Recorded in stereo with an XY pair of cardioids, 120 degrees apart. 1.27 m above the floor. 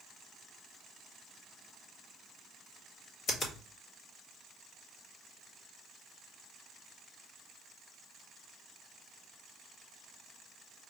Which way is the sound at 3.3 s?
50° left.